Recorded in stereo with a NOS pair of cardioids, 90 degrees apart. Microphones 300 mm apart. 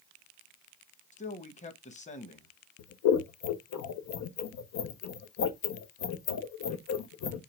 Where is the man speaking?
25° left, 1.2 m.